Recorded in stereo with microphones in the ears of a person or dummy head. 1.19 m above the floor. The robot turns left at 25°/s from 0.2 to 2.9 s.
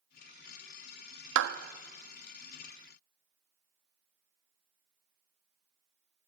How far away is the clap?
About 1.3 m.